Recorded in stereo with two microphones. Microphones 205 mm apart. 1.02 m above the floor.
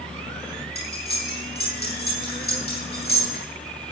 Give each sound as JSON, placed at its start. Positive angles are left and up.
{"t": 0.8, "sound": "cutlery clinking", "side_deg": 50, "distance_m": 7.0}